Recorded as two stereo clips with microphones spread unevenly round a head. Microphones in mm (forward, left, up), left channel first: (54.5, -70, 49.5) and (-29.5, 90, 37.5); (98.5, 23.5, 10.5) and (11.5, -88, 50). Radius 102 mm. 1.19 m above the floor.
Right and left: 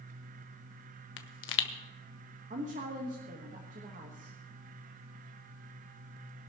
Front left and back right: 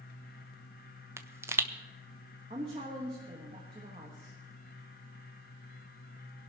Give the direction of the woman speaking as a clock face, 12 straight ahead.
6 o'clock.